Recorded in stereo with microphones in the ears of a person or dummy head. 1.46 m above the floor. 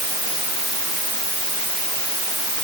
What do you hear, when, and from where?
Only background noise.